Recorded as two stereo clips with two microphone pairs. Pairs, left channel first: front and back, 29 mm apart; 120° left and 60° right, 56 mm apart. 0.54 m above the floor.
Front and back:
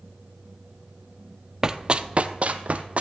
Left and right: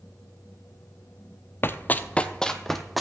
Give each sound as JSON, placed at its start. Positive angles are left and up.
{"t": 1.6, "sound": "running footsteps", "azimuth_deg": 125, "distance_m": 0.6}